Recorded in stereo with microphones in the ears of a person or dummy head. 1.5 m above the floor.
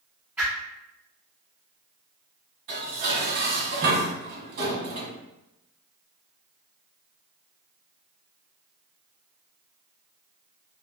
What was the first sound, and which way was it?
A whoosh, 10° right (ahead or behind).